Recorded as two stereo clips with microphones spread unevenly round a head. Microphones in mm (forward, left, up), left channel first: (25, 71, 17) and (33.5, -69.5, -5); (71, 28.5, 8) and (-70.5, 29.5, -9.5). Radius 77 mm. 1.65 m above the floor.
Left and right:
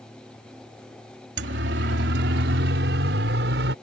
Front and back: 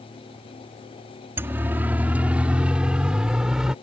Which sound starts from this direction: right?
A siren, at 1.4 s.